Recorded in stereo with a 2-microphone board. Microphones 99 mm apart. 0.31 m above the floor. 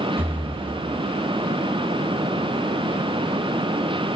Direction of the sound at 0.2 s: 20° right (ahead or behind).